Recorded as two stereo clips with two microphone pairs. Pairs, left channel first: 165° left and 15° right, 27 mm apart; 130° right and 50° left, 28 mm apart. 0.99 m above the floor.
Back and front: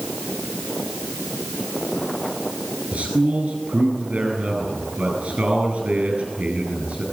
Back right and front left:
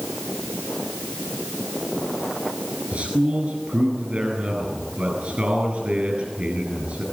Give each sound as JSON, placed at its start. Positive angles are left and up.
{"t": 2.9, "sound": "a man speaking", "azimuth_deg": 10, "distance_m": 9.5}